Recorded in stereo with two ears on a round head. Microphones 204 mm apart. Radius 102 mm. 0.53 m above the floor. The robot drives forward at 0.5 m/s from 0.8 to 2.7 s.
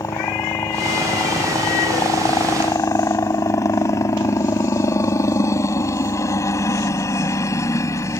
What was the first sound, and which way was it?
A helicopter, 15° left (ahead or behind).